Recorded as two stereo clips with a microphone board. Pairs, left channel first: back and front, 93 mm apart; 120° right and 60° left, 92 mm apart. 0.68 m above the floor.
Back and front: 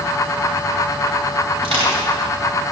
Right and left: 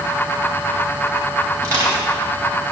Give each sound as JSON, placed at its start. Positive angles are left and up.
{"t": 1.6, "sound": "crushing", "azimuth_deg": 5, "distance_m": 3.0}